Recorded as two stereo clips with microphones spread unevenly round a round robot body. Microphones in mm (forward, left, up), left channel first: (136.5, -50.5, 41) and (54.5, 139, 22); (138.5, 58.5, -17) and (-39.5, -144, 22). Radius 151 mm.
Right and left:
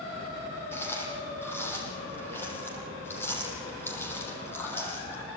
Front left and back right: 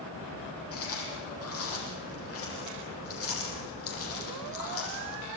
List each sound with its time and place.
0.7 s chewing: 10° left, 7 m